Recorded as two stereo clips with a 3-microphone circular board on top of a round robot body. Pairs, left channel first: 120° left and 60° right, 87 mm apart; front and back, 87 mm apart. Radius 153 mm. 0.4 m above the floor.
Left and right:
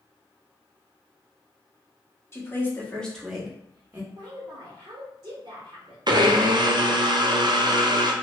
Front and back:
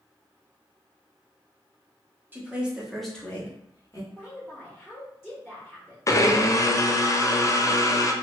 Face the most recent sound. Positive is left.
turn(degrees=-45)